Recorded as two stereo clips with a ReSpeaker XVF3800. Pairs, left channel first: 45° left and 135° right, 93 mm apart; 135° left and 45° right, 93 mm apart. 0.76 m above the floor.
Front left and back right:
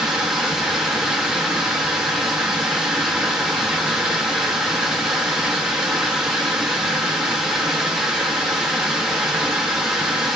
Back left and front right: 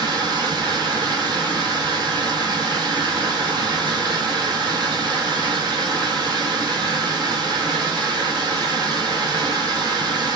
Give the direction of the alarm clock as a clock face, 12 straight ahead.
No alarm clock in this recording.